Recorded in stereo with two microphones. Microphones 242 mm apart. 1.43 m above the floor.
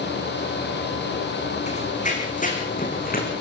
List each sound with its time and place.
1.7 s running footsteps: 30° left (ahead or behind), 4.5 m; by 3.3 s 35° left (ahead or behind), 5 m